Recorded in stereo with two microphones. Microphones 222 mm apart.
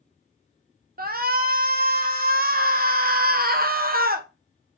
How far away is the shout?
About 0.7 m.